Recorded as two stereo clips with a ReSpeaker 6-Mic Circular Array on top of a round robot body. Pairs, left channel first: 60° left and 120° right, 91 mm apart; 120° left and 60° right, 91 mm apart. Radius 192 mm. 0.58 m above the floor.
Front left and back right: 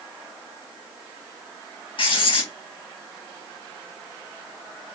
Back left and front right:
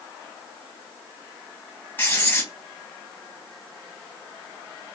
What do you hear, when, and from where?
2.0 s writing: 55° left, 2.5 m